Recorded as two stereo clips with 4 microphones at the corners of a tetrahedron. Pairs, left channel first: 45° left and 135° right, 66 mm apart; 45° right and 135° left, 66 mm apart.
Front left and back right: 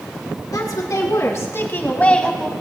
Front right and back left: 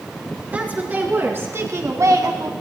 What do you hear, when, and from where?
0.5 s a woman speaking: 70° left, 3.5 m; by 2.5 s 135° left, 1.9 m